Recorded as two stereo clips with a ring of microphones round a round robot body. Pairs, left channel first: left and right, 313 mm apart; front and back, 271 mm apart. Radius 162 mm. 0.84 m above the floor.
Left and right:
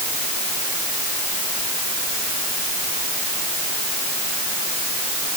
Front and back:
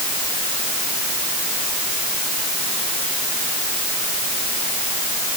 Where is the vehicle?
No vehicle in this recording.